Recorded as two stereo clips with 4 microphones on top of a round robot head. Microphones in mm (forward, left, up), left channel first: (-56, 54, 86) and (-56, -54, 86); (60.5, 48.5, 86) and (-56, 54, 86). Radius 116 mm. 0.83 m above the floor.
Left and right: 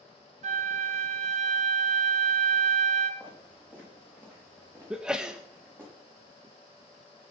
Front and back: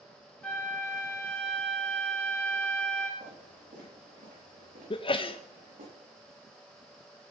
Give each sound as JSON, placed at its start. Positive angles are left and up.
{"t": 0.4, "sound": "a flute", "azimuth_deg": -85, "distance_m": 0.7}
{"t": 3.2, "sound": "footsteps", "azimuth_deg": -160, "distance_m": 8.0}
{"t": 4.9, "sound": "a sneeze", "azimuth_deg": -10, "distance_m": 0.7}